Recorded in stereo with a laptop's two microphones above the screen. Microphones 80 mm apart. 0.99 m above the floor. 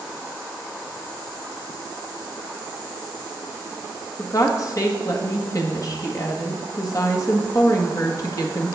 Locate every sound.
4.2 s a woman speaking: 45° left (ahead or behind), 1.2 m